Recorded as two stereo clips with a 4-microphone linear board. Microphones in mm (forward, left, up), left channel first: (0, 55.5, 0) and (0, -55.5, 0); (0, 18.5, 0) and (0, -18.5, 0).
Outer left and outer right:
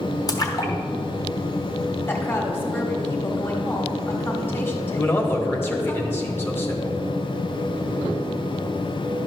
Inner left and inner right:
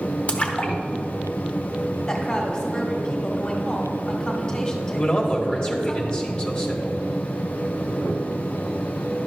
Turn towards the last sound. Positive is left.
turn(degrees=20)  # may be behind; listen again after turning